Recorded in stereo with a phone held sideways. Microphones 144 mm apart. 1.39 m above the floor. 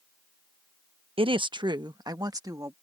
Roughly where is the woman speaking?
Right.